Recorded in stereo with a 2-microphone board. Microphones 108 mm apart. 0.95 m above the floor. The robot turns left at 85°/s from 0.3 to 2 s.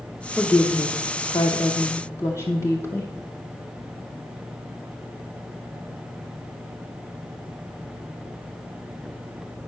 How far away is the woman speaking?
About 0.7 m.